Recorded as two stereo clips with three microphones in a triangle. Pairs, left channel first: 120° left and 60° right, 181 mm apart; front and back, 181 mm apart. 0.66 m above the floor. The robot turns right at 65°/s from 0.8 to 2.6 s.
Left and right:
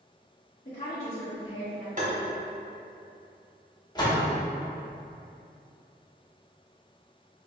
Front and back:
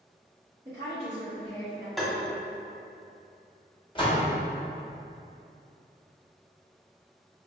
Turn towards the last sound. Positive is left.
turn(degrees=60)